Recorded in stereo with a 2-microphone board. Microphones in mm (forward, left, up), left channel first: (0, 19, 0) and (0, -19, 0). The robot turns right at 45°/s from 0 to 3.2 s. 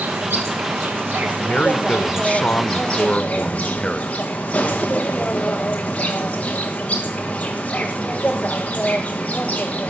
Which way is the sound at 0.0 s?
110° right.